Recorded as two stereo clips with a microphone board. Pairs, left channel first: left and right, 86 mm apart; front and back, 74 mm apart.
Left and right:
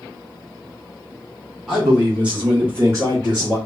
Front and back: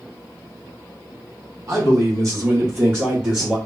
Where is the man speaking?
175° right, 1.8 m; by 3.6 s 105° right, 1.6 m.